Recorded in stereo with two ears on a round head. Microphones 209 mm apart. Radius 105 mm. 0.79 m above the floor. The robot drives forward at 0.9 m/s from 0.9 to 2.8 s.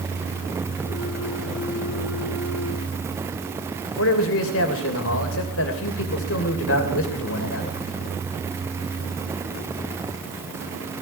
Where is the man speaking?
60° left (ahead or behind), 3 m.